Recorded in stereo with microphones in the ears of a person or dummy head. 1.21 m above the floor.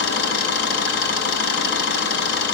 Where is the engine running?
65° left (ahead or behind), 4.5 m.